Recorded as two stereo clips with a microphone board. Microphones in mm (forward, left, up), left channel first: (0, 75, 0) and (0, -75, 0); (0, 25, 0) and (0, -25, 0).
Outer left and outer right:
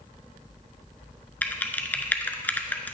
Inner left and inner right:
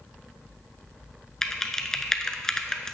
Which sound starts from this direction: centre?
Typing on a keyboard, at 1.4 s.